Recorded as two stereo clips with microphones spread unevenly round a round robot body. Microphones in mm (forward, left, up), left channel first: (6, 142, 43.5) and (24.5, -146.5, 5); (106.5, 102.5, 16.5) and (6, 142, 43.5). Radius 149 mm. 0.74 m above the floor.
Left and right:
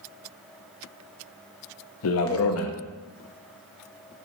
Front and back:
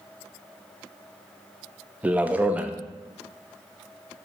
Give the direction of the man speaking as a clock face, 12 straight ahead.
10 o'clock.